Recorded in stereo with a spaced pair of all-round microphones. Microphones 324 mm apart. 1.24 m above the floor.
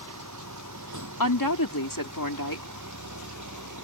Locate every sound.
0.0 s a vehicle: 65° right (ahead or behind)
1.2 s a woman speaking: 90° left